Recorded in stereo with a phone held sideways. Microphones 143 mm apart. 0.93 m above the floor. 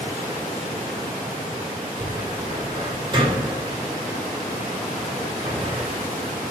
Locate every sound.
2.0 s a cupboard door: 30° right (ahead or behind), 2 m